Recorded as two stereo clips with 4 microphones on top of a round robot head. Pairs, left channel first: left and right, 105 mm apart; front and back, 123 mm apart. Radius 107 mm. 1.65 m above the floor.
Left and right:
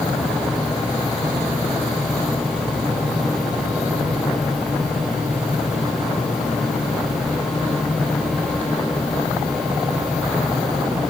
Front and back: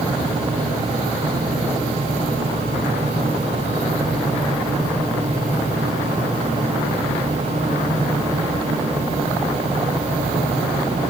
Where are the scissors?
No scissors in this recording.